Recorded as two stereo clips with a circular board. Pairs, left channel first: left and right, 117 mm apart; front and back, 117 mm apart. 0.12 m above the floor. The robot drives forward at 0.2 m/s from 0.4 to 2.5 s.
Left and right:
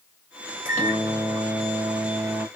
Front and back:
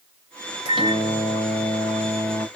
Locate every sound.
0.7 s a microwave: 155° right, 1.2 m; by 2.5 s 165° right, 1.5 m